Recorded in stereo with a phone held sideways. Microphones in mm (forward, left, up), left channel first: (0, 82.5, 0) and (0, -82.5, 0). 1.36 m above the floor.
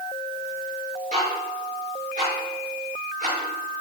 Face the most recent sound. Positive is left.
turn(degrees=-45)  # may be behind; listen again after turning